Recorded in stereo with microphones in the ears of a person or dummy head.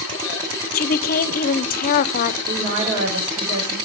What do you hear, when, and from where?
0.7 s a woman speaking: 45° left (ahead or behind), 0.7 m
2.5 s a woman speaking: 70° right (ahead or behind), 6 m